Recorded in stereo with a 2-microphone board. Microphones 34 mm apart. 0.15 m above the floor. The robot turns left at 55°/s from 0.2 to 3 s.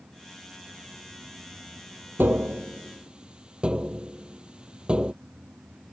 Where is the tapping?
65° right (ahead or behind); by 5.1 s 25° right (ahead or behind).